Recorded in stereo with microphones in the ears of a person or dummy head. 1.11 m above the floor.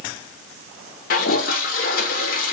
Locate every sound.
1.1 s a toilet flushing: 45° left (ahead or behind), 0.5 m